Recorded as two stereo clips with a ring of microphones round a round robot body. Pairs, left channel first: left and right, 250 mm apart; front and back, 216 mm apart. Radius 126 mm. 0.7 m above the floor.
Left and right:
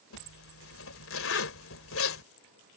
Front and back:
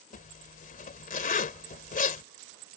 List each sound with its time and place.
0.1 s a zipper: 50° left